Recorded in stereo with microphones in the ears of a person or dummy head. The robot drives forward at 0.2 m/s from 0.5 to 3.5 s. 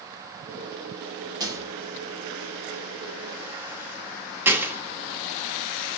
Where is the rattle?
20° right (ahead or behind), 0.7 m; by 5.0 s 10° right (ahead or behind), 1.0 m.